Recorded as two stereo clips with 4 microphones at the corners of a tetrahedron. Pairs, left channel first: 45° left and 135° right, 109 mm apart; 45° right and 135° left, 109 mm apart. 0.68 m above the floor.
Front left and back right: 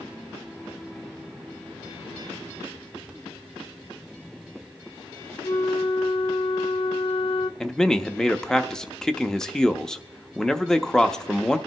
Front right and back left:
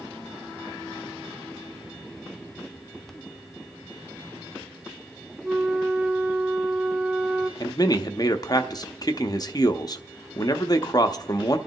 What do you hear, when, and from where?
5.4 s a flute: 65° left, 0.6 m
7.6 s a man speaking: 35° right, 0.8 m